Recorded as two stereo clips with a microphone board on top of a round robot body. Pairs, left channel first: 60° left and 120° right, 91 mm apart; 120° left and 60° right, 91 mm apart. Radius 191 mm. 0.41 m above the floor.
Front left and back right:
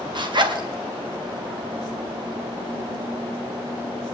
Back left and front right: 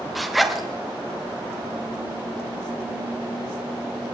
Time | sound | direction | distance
0.1 | a zipper | 150° right | 2.0 m